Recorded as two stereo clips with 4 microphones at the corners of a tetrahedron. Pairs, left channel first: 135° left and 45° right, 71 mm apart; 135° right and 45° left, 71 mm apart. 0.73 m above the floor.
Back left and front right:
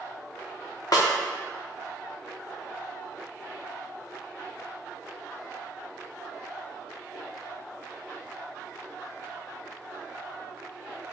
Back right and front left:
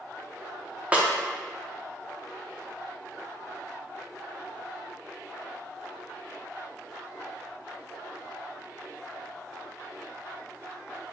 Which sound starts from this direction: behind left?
A snare drum, at 0.9 s.